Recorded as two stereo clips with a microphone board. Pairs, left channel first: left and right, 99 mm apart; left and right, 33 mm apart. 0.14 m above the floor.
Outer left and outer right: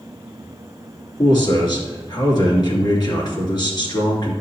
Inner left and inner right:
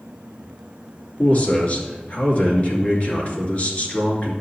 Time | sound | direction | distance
1.2 | a man speaking | 50° left (ahead or behind) | 2.5 m